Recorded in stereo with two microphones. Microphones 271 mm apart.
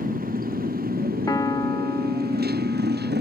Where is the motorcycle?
30° right (ahead or behind); by 3.2 s 40° right (ahead or behind).